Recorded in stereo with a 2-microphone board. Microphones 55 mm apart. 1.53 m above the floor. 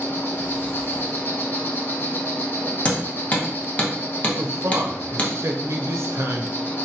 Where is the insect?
40° left (ahead or behind), 0.7 m.